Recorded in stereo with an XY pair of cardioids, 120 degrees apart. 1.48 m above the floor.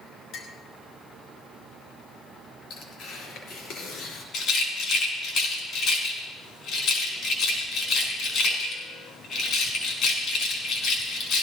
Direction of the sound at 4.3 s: 65° left.